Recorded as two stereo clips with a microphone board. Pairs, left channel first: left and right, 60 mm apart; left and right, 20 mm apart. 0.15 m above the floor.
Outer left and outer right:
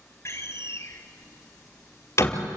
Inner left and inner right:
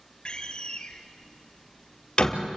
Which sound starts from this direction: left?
A door slam, at 0.2 s.